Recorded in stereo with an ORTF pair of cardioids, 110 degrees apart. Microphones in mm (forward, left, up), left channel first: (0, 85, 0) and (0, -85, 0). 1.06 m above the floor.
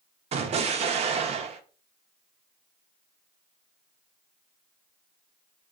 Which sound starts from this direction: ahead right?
An explosion, at 0.3 s.